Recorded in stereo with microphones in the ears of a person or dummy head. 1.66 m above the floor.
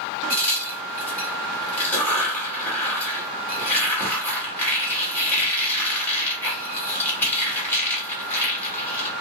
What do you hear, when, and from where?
0.3 s a crack: 10° left (ahead or behind), 1.3 m